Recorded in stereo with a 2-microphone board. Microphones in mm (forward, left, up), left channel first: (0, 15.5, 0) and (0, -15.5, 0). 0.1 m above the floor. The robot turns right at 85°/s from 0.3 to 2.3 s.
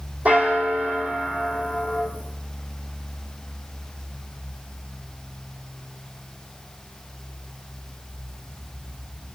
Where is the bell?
125° right, 2.0 m; by 2.1 s 25° left, 2.0 m.